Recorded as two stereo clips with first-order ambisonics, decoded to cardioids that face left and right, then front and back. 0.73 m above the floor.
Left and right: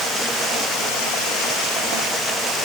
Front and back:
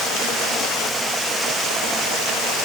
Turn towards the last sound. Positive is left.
No sound to turn to.